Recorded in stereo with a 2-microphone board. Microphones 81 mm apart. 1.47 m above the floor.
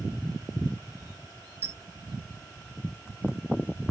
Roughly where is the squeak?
Right.